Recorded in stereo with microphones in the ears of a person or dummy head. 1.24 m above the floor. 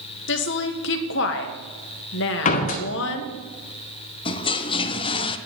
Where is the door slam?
50° left (ahead or behind), 1.2 m.